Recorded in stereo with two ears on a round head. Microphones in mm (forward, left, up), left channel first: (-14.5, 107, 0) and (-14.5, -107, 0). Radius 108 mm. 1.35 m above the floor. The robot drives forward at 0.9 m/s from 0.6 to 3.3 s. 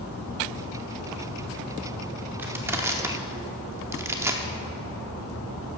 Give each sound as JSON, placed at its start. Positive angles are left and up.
{"t": 2.4, "sound": "crushing", "side_deg": -10, "distance_m": 1.1}